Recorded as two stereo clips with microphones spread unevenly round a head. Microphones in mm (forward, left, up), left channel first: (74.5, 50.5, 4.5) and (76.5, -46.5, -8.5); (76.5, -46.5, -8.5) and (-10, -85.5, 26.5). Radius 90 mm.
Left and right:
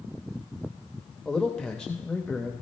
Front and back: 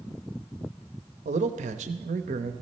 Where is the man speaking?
Straight behind, 0.7 m.